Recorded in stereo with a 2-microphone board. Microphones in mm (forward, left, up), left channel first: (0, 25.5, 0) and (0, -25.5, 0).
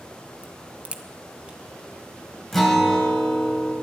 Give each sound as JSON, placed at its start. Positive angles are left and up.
{"t": 0.4, "sound": "a crack", "side_deg": -25, "distance_m": 1.1}
{"t": 2.5, "sound": "a guitar", "side_deg": 5, "distance_m": 2.5}